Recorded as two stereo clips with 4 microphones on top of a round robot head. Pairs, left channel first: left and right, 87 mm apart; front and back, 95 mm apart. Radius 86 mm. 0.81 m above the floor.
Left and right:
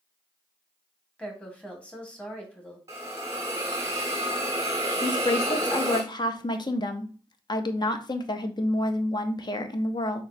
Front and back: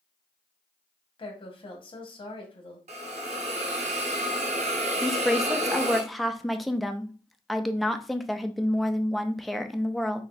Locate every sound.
1.2 s a woman speaking: 15° left, 1.8 m
2.9 s a hiss: 160° right, 0.6 m
5.0 s a woman speaking: 90° left, 0.7 m